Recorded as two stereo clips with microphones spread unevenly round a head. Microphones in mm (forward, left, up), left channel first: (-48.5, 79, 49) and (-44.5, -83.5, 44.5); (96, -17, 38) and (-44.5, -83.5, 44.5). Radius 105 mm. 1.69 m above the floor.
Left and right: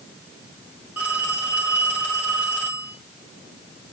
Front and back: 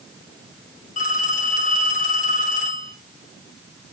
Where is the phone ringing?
5° right, 3.5 m.